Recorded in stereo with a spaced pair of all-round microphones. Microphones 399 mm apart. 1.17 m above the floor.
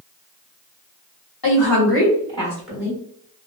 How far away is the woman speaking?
About 1.3 m.